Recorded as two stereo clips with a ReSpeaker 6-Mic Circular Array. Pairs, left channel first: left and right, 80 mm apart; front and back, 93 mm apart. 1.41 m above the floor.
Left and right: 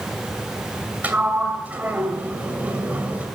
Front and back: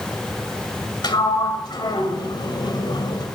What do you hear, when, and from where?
1.0 s a sliding door: 25° right, 2 m